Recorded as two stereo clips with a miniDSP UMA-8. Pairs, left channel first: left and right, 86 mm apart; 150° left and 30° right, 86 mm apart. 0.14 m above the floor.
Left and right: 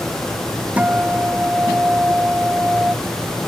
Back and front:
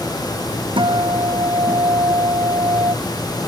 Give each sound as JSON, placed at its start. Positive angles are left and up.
{"t": 0.8, "sound": "a guitar", "azimuth_deg": -20}